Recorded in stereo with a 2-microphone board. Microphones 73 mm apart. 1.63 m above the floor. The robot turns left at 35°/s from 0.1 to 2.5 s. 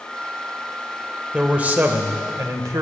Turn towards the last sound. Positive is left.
turn(degrees=-55)